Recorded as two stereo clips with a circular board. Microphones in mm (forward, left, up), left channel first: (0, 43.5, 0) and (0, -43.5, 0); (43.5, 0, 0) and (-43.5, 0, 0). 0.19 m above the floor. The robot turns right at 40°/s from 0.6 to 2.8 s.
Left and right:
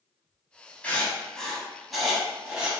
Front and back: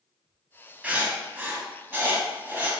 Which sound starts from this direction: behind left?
Writing, at 0.8 s.